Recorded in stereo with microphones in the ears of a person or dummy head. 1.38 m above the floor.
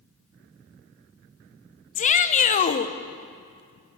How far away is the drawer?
No drawer in this recording.